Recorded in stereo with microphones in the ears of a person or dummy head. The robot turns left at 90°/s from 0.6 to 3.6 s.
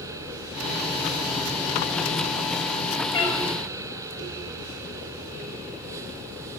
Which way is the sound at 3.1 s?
20° left (ahead or behind).